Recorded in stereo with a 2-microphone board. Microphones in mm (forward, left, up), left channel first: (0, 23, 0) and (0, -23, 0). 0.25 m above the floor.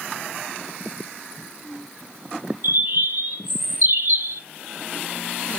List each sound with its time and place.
2.6 s a bird: 55° right (ahead or behind), 0.6 m